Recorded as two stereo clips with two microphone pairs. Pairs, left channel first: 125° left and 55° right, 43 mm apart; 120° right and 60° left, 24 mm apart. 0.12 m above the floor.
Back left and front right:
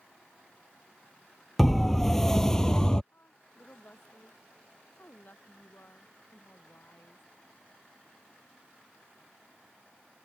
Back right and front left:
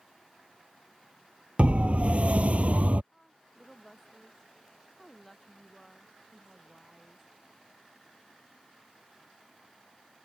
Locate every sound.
1.6 s a siren: 35° left; by 3.0 s 50° left
3.1 s a woman speaking: 160° left